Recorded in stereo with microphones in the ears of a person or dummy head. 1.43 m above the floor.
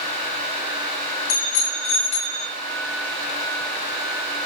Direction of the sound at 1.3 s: 45° left (ahead or behind).